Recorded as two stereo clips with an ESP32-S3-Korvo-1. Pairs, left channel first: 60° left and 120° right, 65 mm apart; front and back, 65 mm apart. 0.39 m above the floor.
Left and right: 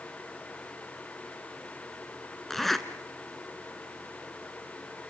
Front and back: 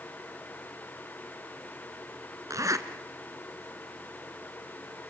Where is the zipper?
150° left, 1.6 m.